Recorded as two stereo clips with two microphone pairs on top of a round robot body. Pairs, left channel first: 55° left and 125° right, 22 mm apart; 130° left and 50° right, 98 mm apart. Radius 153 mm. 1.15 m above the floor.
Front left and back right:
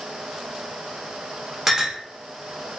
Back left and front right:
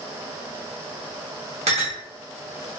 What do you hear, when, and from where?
1.7 s a clink: 55° right, 1.2 m